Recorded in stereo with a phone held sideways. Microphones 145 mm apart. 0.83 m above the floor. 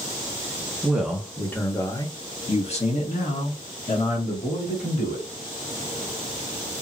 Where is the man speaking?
10° right (ahead or behind), 1.0 m; by 5.2 s 80° left, 2 m.